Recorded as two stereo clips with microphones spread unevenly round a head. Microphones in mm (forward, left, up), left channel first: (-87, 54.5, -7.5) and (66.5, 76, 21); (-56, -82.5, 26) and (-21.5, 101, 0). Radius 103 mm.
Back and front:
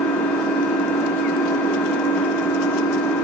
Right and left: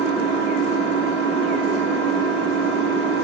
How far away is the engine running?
About 6 m.